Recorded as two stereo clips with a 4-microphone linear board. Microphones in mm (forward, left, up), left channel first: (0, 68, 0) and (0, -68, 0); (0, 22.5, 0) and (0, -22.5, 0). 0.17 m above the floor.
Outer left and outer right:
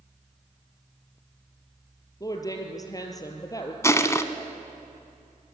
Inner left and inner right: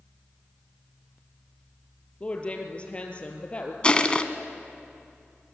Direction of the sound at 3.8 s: 20° left (ahead or behind).